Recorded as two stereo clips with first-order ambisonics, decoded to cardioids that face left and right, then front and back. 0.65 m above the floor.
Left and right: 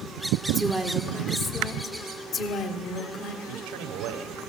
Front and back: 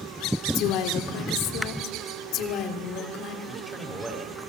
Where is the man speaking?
95° right, 2.5 m.